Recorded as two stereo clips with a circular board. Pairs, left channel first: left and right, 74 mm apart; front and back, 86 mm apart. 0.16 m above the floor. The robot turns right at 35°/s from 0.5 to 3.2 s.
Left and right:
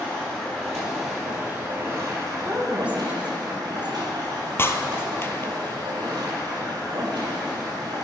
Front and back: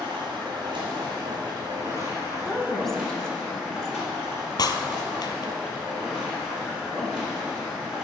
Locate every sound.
0.0 s running water: 165° left, 4 m; by 8.1 s 100° right, 4 m
2.5 s a woman speaking: 90° right, 1.3 m; by 4.0 s 65° right, 1.3 m
4.6 s breaking glass: 35° left, 0.8 m